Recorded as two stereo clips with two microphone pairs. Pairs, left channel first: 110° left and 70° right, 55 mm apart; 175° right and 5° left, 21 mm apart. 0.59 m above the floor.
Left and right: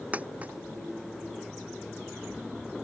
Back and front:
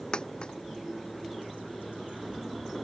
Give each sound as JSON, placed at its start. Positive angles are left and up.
{"t": 0.1, "sound": "a dropped coin", "azimuth_deg": -135}